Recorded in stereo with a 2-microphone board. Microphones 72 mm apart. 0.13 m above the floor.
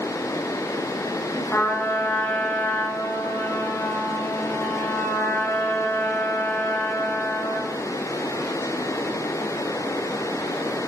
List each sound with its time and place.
1.5 s a trumpet: 25° left (ahead or behind), 4 m